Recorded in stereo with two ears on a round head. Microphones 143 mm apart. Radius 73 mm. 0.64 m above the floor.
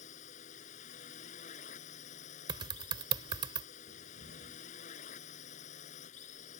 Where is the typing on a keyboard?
30° right (ahead or behind).